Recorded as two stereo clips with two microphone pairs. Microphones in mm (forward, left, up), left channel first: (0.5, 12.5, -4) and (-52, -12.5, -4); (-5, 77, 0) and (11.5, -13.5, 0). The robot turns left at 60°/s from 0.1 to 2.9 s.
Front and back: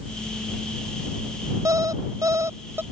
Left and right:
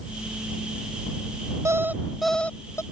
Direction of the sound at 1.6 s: 135° right.